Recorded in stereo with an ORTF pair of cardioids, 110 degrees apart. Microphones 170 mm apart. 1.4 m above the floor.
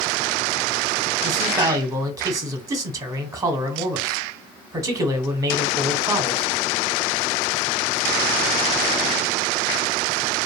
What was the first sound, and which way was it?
A man speaking, 20° right.